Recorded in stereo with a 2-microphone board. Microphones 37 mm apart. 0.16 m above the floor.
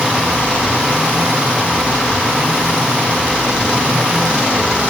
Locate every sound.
Only background noise.